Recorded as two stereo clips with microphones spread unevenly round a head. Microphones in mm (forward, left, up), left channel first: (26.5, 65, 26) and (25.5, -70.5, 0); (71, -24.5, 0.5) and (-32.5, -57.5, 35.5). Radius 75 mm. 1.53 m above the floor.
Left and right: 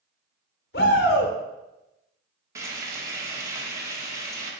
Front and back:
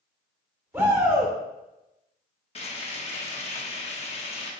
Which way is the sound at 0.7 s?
120° left.